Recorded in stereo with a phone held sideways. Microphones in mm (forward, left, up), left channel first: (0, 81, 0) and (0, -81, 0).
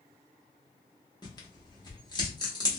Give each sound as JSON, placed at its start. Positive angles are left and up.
{"t": 1.2, "sound": "tearing paper", "side_deg": 25, "distance_m": 0.9}